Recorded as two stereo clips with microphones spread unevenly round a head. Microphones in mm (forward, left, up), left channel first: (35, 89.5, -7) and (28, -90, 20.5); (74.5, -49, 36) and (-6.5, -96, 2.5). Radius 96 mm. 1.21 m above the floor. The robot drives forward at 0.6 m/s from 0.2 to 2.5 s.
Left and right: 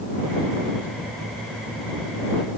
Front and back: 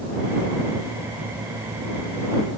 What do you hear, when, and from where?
Only background noise.